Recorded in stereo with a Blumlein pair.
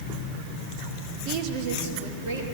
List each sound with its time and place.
1.2 s a woman speaking: 35° right, 1.3 m; by 2.4 s 55° right, 2.5 m